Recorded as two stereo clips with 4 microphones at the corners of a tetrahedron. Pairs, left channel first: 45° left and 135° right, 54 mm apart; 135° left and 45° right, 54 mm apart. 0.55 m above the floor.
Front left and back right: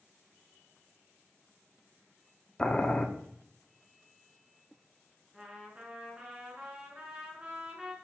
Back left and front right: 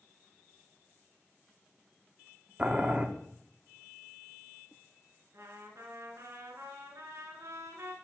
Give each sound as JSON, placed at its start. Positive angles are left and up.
{"t": 2.6, "sound": "boiling", "azimuth_deg": -10, "distance_m": 0.9}
{"t": 5.3, "sound": "a trumpet", "azimuth_deg": -65, "distance_m": 2.0}